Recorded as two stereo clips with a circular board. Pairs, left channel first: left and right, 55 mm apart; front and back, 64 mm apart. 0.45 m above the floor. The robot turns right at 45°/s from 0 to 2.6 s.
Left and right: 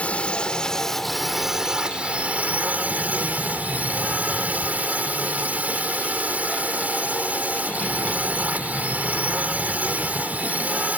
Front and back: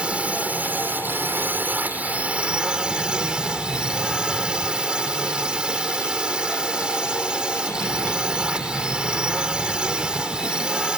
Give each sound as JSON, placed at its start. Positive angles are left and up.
{"t": 0.0, "sound": "a drone", "azimuth_deg": 125}